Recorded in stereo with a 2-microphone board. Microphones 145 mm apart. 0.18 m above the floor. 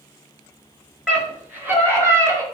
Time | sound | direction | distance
1.1 | a scream | 10° right (ahead or behind) | 3 m